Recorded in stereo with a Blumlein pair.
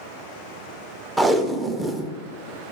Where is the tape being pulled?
10° right, 0.6 m.